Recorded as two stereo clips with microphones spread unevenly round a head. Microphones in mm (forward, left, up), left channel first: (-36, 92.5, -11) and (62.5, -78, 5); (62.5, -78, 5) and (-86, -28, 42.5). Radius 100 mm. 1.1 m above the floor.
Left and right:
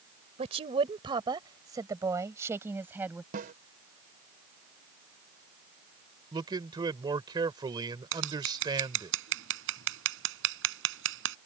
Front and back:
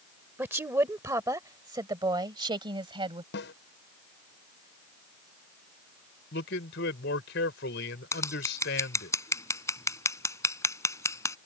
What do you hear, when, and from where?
0.4 s a woman speaking: 120° right; by 3.2 s 140° right
3.3 s a snare drum: 15° right
6.3 s a man speaking: 10° left
8.1 s scissors: 90° right